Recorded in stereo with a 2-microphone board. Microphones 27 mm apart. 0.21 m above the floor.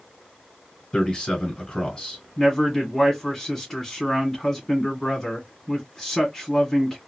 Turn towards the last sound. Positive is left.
turn(degrees=15)  # may be behind; listen again after turning